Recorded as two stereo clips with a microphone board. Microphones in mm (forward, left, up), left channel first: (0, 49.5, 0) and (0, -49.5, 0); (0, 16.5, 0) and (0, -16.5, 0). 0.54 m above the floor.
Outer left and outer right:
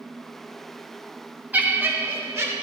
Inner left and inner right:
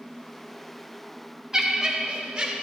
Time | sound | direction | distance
1.5 | laughter | 15° right (ahead or behind) | 0.8 m